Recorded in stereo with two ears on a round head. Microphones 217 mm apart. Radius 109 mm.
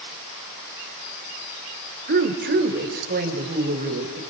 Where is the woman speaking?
45° right (ahead or behind), 2 m; by 4.2 s 40° right (ahead or behind), 3.5 m.